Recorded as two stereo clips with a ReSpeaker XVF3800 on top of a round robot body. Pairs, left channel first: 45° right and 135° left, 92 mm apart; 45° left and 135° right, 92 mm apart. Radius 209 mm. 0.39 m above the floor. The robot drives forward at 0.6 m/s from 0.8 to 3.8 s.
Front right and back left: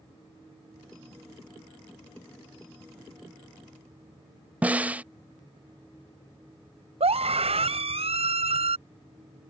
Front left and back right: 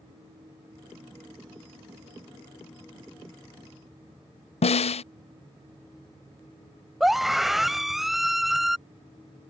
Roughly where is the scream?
Behind left.